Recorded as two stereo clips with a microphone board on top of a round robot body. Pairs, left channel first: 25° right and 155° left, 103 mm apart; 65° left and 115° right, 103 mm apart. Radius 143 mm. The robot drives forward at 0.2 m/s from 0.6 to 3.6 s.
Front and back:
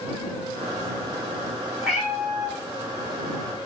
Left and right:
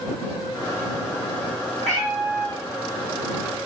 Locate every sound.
1.8 s a cat meowing: 115° right, 1.4 m; by 2.6 s 120° right, 1.5 m